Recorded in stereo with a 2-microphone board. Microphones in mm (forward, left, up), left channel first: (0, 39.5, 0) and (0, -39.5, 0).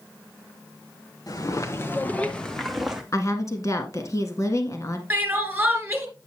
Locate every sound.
1.3 s footsteps: 50° left (ahead or behind), 1.6 m; by 3.0 s 5° right (ahead or behind), 1.8 m
3.1 s a woman speaking: 45° left (ahead or behind), 1.4 m
5.1 s crying: 20° right (ahead or behind), 2.5 m